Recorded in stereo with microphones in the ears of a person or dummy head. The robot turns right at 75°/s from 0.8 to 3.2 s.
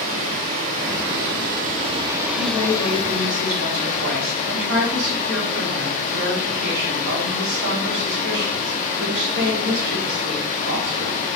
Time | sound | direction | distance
0.0 | running water | 130° right | 0.8 m
2.4 | a woman speaking | 165° right | 2 m